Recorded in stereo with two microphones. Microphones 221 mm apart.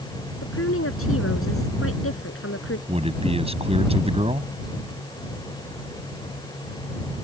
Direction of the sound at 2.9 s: 25° right (ahead or behind).